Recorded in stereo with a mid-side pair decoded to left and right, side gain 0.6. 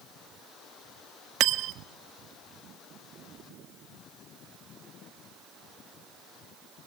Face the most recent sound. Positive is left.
turn(degrees=-60)